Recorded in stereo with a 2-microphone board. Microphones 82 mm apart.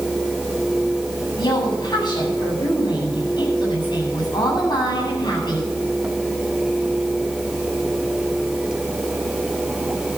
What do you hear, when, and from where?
1.4 s a woman speaking: 65° left (ahead or behind), 8.5 m